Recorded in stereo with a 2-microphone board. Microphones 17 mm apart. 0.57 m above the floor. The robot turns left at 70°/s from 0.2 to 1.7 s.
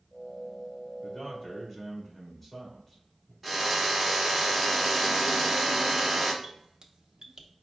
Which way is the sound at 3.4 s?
Centre (ahead or behind).